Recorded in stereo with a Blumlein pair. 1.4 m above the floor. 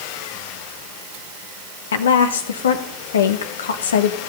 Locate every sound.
1.9 s a woman speaking: 65° left, 1.0 m